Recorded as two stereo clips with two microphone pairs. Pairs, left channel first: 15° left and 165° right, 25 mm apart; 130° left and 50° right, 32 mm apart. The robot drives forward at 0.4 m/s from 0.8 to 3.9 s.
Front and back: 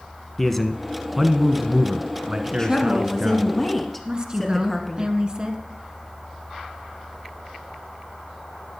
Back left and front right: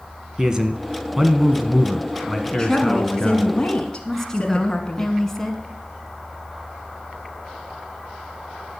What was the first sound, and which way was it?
A man speaking, 50° right.